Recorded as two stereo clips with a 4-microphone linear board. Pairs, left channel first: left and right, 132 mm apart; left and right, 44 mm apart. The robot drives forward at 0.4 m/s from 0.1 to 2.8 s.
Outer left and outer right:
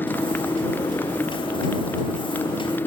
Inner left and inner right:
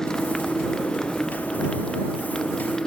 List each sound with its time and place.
0.0 s a motorcycle: 15° left (ahead or behind)